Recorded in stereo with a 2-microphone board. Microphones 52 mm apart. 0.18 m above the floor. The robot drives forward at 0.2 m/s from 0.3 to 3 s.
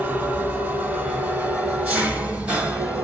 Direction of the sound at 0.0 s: 35° right (ahead or behind).